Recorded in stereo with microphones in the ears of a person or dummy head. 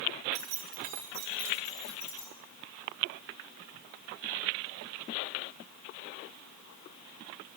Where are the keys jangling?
55° right (ahead or behind), 2.0 m; by 2.3 s 25° left (ahead or behind), 1.5 m.